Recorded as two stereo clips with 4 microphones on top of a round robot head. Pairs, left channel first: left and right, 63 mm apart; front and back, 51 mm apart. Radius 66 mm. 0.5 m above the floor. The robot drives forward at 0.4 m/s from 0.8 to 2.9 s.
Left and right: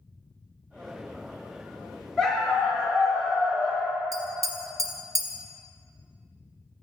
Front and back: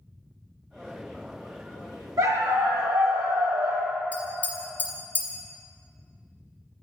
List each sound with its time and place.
2.2 s a dog barking: 175° left, 0.7 m; by 4.0 s straight behind, 1.0 m
4.1 s tapping: 70° right, 0.9 m